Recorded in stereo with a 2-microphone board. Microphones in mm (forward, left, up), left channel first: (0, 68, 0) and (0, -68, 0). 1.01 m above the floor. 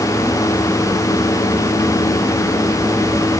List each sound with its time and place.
Only background noise.